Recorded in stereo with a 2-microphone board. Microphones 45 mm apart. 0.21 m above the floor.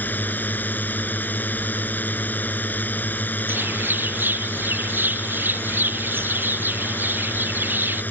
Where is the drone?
45° left (ahead or behind).